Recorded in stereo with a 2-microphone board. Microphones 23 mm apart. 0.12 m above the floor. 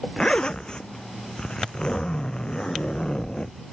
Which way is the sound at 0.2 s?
35° left (ahead or behind).